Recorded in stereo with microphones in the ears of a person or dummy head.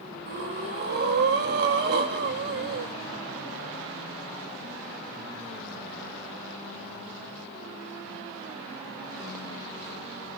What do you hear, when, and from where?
0.3 s breathing: 60° right (ahead or behind), 1.3 m